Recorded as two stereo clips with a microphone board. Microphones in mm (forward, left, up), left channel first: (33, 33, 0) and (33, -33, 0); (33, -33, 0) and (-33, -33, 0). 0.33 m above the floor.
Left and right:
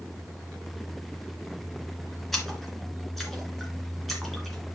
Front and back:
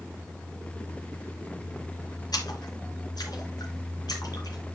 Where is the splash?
Straight ahead, 3 m.